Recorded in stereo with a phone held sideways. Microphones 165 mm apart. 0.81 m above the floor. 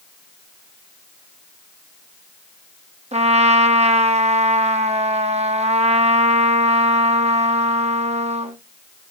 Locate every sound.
3.1 s a trumpet: 40° right (ahead or behind), 0.9 m